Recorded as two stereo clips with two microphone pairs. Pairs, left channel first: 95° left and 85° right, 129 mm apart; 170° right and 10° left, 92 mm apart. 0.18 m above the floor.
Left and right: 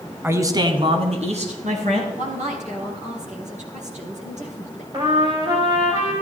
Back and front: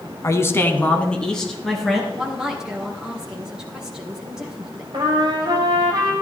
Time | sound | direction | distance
0.2 | a man speaking | 150° right | 1.3 m
2.1 | a woman speaking | 75° right | 3.5 m
4.9 | a trumpet | 35° right | 3.5 m